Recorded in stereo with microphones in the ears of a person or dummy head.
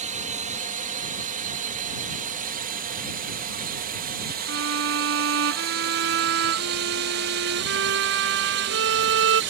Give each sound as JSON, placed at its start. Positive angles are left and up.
{"t": 0.0, "sound": "a drone", "side_deg": -35}
{"t": 4.5, "sound": "a violin", "side_deg": -70}